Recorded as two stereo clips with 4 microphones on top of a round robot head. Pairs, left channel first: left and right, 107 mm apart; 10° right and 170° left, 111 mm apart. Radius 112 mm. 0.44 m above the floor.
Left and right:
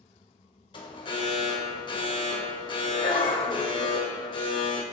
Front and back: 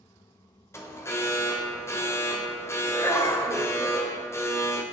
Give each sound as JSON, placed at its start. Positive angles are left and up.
{"t": 0.7, "sound": "an alarm", "azimuth_deg": 55, "distance_m": 2.5}